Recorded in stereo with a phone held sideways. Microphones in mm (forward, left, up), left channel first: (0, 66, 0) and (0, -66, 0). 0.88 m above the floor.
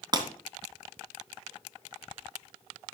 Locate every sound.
0.1 s breaking glass: 35° right (ahead or behind), 2.5 m